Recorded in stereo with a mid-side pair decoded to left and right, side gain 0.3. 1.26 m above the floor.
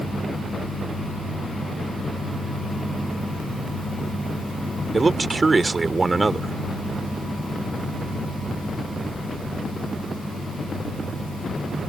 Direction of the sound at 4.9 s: 40° right.